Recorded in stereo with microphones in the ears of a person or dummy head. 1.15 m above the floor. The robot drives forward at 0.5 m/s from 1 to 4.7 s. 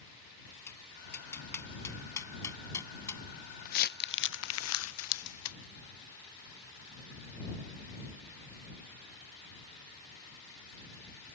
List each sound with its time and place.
0.7 s tapping: 15° left (ahead or behind); by 3.2 s 20° left (ahead or behind)
3.6 s crumpling: 45° left (ahead or behind); by 5.6 s 70° left (ahead or behind)